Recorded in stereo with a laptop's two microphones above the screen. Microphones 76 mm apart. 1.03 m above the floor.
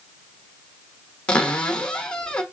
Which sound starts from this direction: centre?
A cupboard door, at 1.3 s.